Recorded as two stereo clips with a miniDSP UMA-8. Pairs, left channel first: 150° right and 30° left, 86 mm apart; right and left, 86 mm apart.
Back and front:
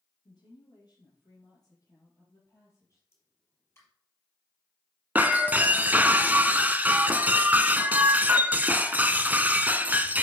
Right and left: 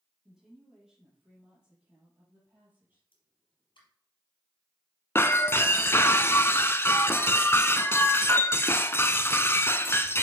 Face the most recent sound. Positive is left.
turn(degrees=-35)